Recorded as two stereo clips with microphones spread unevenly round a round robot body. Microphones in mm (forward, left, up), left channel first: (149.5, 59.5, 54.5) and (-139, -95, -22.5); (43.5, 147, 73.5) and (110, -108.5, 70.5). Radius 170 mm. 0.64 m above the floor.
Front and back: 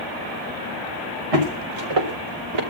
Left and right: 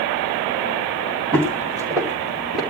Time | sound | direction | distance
1.3 | footsteps | 150° right | 4 m